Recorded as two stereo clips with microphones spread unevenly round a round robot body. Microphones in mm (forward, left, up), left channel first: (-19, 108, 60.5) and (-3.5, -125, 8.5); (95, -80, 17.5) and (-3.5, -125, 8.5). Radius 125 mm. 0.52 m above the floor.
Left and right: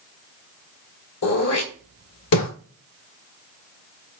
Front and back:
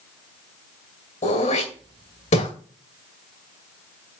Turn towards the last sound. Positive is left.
turn(degrees=70)